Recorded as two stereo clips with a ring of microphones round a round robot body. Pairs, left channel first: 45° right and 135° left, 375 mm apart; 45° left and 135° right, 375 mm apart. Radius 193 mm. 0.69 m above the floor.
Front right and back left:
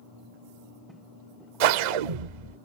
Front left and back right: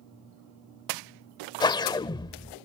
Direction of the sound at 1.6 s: 125° left.